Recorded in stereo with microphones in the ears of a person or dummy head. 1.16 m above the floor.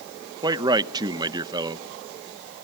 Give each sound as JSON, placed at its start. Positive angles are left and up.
{"t": 0.4, "sound": "a man speaking", "side_deg": -20, "distance_m": 0.8}